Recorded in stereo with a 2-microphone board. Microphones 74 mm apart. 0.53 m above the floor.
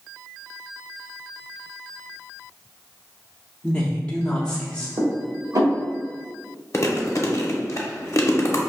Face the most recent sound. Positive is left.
turn(degrees=40)  # may be behind; listen again after turning